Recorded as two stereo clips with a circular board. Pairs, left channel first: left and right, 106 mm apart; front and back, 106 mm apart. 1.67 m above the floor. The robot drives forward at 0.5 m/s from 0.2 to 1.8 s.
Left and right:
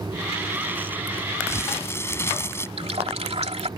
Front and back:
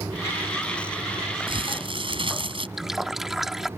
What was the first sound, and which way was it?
Crumpling, 150° left.